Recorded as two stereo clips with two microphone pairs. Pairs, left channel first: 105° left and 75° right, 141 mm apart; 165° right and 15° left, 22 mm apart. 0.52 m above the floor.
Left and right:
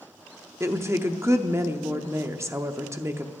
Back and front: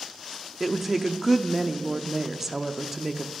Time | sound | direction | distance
0.6 | a woman speaking | 40° right | 0.7 m